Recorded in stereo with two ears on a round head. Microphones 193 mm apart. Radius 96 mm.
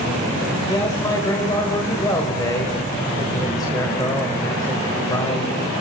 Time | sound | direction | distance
0.7 | a man speaking | 20° left (ahead or behind) | 1.5 m